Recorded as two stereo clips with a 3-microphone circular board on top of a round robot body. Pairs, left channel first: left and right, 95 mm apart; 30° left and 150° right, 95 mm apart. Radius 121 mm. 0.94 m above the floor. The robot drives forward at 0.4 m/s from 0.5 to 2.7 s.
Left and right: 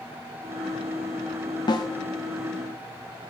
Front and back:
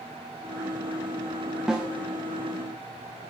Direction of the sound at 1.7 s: 125° left.